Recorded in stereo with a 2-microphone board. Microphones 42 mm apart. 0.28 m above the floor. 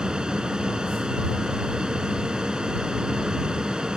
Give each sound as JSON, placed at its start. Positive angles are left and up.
{"t": 0.0, "sound": "an aircraft", "side_deg": -15}